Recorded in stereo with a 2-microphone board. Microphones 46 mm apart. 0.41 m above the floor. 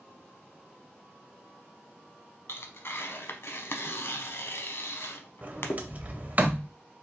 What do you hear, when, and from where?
2.5 s tearing paper: 55° left (ahead or behind), 0.6 m
5.4 s a sliding door: 30° right (ahead or behind), 0.6 m